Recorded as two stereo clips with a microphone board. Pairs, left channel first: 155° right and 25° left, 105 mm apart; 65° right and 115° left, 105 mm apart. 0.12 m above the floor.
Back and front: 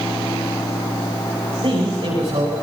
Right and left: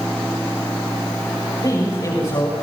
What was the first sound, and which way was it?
A man speaking, 15° right.